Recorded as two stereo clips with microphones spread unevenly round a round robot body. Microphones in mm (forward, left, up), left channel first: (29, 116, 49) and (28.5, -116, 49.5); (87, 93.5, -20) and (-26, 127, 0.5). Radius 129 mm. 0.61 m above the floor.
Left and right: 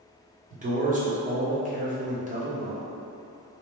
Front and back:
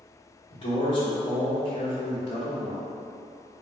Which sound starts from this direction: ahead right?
A man speaking, at 0.5 s.